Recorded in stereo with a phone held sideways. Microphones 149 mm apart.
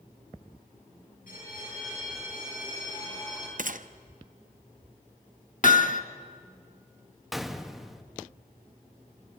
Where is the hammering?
60° left (ahead or behind), 1.1 m.